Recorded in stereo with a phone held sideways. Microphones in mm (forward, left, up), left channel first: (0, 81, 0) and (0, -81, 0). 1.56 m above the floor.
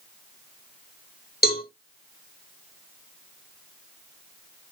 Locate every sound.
1.4 s a cowbell: 65° left (ahead or behind), 4 m